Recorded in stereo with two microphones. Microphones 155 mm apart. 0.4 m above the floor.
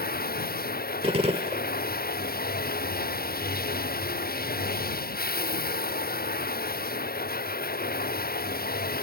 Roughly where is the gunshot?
Right.